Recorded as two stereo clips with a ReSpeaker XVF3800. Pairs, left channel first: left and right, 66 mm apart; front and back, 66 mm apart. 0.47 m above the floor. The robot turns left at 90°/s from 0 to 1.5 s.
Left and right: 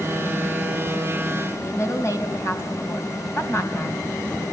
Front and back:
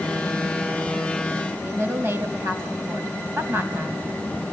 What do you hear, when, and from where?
1.6 s a woman speaking: 130° left, 3 m